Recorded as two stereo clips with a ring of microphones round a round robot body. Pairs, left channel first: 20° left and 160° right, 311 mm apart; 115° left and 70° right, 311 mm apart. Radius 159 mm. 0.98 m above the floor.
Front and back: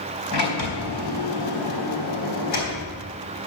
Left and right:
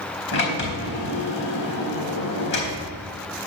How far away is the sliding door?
About 3.5 m.